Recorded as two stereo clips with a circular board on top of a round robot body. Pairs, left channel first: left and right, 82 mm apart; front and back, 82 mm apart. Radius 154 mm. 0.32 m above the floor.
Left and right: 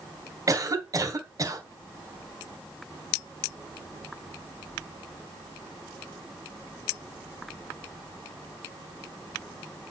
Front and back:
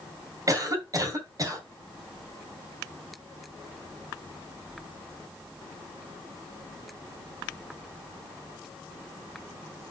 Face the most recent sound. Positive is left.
turn(degrees=-135)